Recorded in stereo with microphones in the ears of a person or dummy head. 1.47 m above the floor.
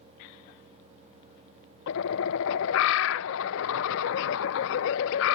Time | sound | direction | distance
1.9 | a bird | 70° left (ahead or behind) | ?